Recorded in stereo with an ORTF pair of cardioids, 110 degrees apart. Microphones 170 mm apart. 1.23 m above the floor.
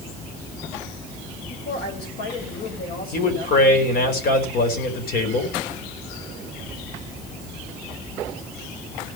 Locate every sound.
1.5 s a woman speaking: 70° left, 6.5 m
3.1 s a man speaking: 60° left, 5 m